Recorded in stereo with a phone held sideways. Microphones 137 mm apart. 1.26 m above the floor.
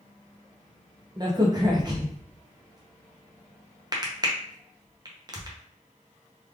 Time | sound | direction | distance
1.2 | a crack | 30° right (ahead or behind) | 0.8 m